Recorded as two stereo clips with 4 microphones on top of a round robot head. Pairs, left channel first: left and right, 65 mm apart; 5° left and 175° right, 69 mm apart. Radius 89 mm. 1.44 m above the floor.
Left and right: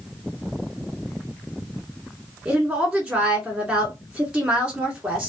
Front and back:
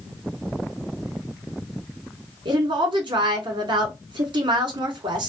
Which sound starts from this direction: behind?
A woman speaking, at 2.5 s.